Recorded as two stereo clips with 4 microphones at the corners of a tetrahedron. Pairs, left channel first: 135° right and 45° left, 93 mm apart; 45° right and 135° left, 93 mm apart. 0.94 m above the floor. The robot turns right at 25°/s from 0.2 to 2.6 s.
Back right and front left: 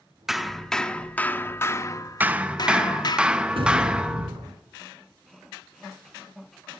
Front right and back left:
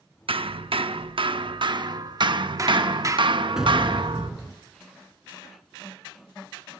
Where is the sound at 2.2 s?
115° left, 0.8 m; by 4.3 s 125° left, 0.8 m.